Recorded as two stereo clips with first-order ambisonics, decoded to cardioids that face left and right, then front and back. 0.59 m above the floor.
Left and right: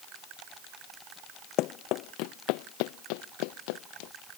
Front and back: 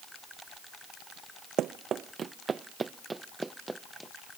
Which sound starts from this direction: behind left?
Running footsteps, at 1.6 s.